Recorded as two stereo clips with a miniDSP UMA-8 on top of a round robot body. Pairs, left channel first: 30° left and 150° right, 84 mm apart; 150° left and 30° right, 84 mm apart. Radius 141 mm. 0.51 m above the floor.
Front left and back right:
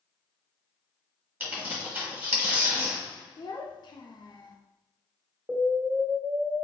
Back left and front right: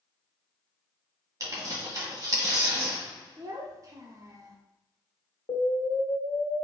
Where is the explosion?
130° left, 1.0 m.